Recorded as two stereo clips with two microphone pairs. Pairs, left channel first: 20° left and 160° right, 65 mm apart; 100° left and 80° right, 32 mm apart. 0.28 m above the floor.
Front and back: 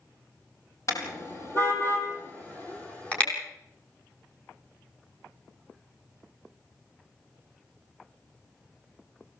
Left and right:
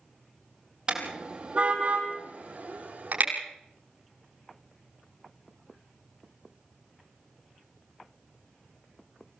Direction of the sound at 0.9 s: 25° right.